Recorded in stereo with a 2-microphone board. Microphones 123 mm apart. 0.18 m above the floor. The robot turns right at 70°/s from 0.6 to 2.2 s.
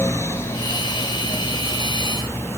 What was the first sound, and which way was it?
Only background noise.